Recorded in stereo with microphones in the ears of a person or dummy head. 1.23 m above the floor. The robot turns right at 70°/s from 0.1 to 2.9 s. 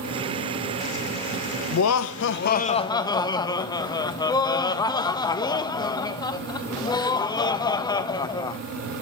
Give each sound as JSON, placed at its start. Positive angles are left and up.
{"t": 1.7, "sound": "laughter", "azimuth_deg": 75, "distance_m": 0.9}